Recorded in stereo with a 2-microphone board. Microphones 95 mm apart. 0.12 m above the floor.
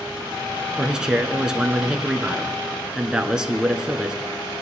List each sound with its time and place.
0.8 s a man speaking: 10° right (ahead or behind), 1.1 m